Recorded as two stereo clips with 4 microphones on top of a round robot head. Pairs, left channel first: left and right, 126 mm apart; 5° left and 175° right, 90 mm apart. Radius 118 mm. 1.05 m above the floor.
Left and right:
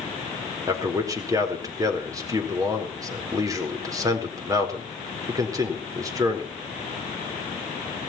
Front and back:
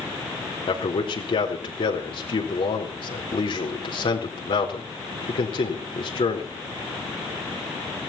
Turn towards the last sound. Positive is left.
turn(degrees=-30)